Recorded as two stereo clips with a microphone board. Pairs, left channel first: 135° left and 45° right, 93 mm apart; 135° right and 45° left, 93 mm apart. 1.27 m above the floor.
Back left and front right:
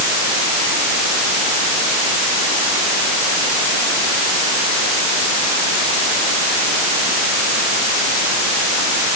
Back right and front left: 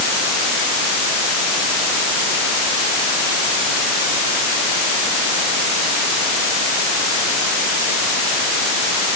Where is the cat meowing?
No cat meowing in this recording.